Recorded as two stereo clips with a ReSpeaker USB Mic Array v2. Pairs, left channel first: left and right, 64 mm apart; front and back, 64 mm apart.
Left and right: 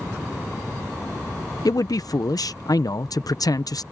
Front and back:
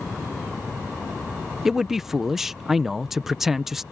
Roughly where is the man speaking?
Left.